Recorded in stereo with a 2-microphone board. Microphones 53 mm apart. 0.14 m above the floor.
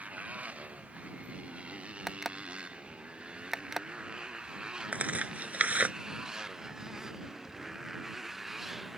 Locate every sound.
0.0 s a motorcycle: 25° right (ahead or behind); by 9.0 s 5° right (ahead or behind)
2.1 s an alarm clock: 5° right (ahead or behind)
4.9 s tearing paper: 30° right (ahead or behind)